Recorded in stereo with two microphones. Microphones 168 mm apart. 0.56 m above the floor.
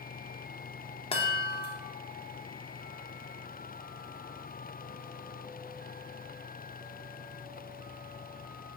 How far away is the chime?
About 0.6 m.